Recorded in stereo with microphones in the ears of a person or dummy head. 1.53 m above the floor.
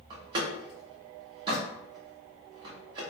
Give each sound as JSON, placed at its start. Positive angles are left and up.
{"t": 0.1, "sound": "a door slam", "side_deg": -15, "distance_m": 0.6}